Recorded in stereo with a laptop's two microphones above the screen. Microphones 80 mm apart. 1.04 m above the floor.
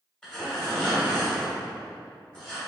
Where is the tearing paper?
10° left (ahead or behind), 1.4 m.